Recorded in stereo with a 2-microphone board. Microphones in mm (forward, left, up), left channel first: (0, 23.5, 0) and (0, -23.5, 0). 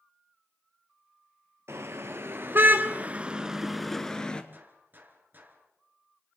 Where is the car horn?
65° right (ahead or behind), 2.5 m; by 4.4 s 20° left (ahead or behind), 1.7 m.